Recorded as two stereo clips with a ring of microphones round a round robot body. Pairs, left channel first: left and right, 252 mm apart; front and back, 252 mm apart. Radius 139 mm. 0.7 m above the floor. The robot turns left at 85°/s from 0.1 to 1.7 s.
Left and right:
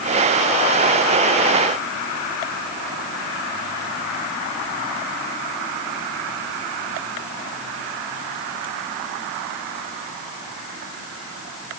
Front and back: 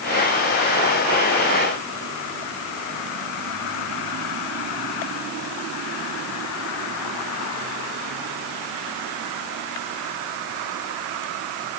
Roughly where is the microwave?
No microwave in this recording.